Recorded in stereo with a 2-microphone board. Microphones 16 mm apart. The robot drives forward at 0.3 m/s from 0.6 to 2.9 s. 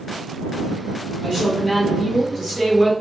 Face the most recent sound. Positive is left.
turn(degrees=5)  # may be behind; listen again after turning